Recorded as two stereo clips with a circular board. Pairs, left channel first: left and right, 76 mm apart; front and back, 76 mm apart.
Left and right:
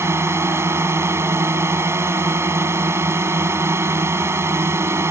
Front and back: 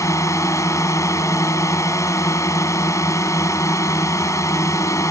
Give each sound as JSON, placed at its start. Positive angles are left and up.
{"t": 0.0, "sound": "a drone", "azimuth_deg": -40}